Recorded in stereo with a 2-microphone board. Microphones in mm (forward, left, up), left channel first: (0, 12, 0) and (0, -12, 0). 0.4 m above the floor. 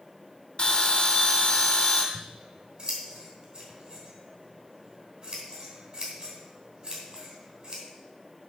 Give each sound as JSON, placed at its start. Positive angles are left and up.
{"t": 0.6, "sound": "a bell", "side_deg": 35, "distance_m": 2.0}
{"t": 2.1, "sound": "scissors", "side_deg": -45, "distance_m": 3.0}